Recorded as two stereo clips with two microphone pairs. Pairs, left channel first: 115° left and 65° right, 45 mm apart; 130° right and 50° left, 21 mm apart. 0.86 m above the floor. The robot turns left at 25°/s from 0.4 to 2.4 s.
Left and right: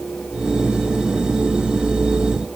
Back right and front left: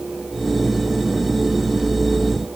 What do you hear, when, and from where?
Only background noise.